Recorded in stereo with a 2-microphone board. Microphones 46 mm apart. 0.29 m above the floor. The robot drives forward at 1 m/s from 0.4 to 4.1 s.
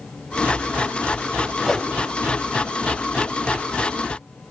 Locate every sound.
1.6 s a whoosh: centre (ahead or behind), 0.6 m